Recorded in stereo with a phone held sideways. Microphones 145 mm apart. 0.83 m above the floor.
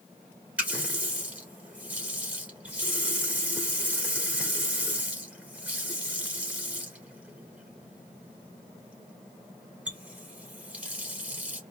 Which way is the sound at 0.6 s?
10° right (ahead or behind).